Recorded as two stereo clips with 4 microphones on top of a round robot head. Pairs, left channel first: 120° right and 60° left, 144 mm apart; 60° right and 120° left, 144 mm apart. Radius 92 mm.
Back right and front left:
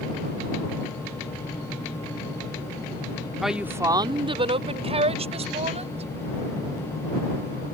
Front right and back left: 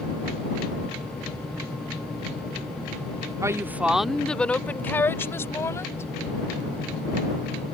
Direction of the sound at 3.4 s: 150° left.